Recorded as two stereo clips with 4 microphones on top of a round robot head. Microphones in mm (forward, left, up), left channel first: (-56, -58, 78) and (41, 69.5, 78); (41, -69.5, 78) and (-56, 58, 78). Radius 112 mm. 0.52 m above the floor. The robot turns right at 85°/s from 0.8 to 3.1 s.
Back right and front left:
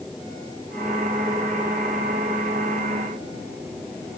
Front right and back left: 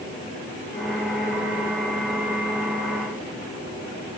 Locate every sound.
Only background noise.